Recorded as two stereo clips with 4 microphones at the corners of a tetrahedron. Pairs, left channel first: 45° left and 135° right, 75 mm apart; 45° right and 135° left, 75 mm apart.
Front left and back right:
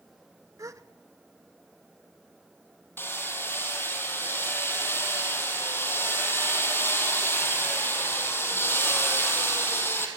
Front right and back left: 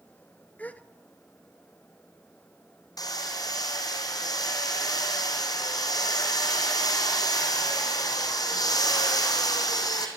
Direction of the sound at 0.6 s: 110° right.